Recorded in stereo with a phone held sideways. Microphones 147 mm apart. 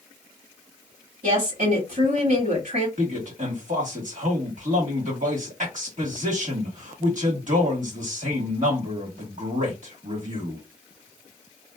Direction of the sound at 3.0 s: 60° right (ahead or behind).